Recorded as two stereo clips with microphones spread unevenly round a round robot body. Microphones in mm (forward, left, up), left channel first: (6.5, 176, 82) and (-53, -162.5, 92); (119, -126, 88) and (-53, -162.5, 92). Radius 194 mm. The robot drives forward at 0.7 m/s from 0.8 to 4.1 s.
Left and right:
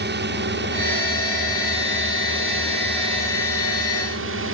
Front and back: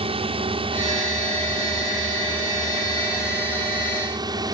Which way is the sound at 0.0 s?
135° right.